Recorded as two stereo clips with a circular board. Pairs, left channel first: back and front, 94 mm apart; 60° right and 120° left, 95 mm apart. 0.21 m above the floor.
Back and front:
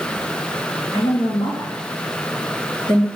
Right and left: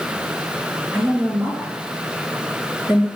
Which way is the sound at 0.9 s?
170° right.